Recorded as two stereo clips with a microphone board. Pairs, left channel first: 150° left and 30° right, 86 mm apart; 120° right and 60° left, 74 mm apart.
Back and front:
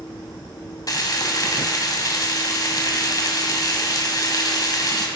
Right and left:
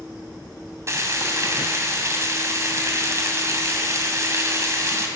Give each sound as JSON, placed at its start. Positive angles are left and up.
{"t": 0.9, "sound": "frying", "azimuth_deg": 110, "distance_m": 2.0}